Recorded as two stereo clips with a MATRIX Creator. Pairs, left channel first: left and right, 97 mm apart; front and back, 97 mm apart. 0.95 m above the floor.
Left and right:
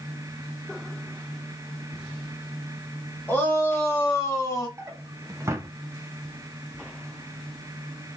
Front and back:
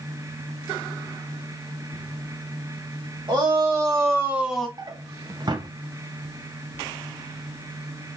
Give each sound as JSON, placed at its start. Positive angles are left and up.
{"t": 3.3, "sound": "a shout", "azimuth_deg": 155, "distance_m": 1.7}
{"t": 4.8, "sound": "a drawer", "azimuth_deg": -145, "distance_m": 0.5}